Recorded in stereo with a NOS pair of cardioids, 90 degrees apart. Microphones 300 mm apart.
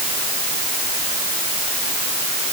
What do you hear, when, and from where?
Only background noise.